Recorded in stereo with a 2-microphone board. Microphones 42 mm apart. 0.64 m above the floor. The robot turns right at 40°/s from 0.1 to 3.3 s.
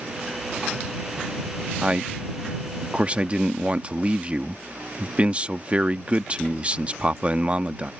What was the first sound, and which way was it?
A man speaking, 125° right.